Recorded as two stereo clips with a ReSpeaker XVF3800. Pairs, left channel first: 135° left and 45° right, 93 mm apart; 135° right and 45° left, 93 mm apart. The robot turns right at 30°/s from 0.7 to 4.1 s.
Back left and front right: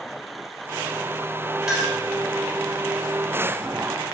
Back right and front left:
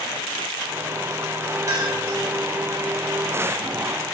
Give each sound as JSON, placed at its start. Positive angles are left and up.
{"t": 1.7, "sound": "a clink", "azimuth_deg": 35, "distance_m": 0.7}